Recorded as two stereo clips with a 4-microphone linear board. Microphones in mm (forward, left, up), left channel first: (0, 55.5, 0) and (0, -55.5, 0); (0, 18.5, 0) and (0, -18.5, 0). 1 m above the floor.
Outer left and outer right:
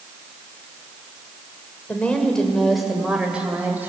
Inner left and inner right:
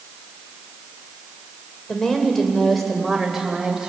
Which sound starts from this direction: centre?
A woman speaking, at 1.9 s.